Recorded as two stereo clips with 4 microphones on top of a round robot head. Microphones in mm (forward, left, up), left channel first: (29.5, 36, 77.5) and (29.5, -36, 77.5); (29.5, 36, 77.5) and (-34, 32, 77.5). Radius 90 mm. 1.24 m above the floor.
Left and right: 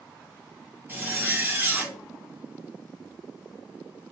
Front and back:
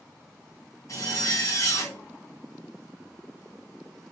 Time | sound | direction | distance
0.9 | a zipper | 30° right | 1.2 m